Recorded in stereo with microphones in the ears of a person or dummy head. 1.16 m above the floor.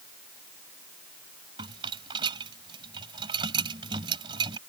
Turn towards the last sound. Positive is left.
turn(degrees=-25)  # may be behind; listen again after turning